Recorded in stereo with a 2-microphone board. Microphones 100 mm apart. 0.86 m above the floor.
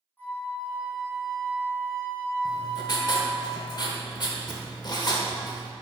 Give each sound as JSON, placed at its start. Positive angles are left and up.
{"t": 0.2, "sound": "a flute", "side_deg": 20, "distance_m": 2.5}
{"t": 2.5, "sound": "writing", "side_deg": 45, "distance_m": 1.0}